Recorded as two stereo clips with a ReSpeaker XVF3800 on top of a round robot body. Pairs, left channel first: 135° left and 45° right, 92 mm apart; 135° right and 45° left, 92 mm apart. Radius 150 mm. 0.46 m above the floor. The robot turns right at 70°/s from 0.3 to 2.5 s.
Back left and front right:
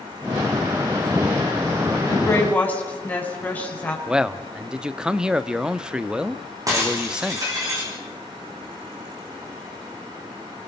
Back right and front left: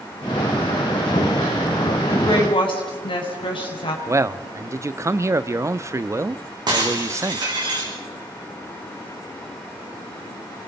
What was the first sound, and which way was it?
A woman speaking, straight behind.